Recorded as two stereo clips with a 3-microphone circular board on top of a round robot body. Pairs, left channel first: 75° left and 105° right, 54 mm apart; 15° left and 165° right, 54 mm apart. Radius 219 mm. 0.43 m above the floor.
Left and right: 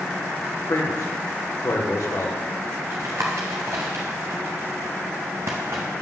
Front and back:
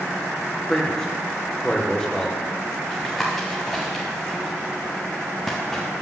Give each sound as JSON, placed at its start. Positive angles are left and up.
{"t": 0.7, "sound": "a man speaking", "azimuth_deg": 90, "distance_m": 1.7}
{"t": 2.9, "sound": "tapping", "azimuth_deg": -70, "distance_m": 0.5}